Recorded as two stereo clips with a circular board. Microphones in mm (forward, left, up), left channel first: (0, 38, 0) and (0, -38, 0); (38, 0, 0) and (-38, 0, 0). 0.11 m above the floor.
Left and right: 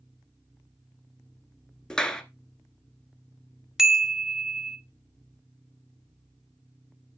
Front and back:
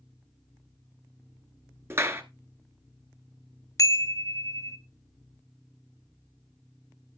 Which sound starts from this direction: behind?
A clap, at 1.9 s.